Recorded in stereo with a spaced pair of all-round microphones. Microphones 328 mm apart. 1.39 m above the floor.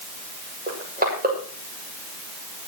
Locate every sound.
0.7 s crushing: 30° right (ahead or behind), 7.5 m